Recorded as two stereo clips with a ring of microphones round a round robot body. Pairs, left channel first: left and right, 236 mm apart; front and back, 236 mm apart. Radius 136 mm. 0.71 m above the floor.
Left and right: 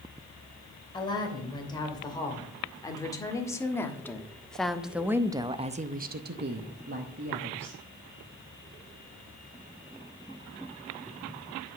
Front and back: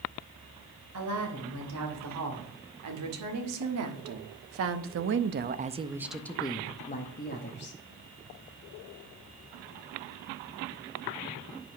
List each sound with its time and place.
0.9 s a woman speaking: 160° left, 3 m; by 7.8 s 40° right, 1.3 m